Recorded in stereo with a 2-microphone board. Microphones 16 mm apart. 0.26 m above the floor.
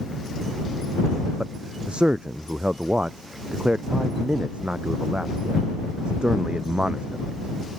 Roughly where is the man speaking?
Right.